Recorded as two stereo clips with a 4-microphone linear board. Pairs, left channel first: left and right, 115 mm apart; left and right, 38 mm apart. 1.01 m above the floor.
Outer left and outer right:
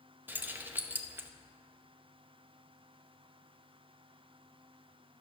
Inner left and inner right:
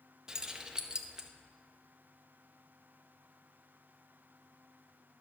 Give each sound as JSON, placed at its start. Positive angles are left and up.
{"t": 0.3, "sound": "keys jangling", "side_deg": -15, "distance_m": 0.8}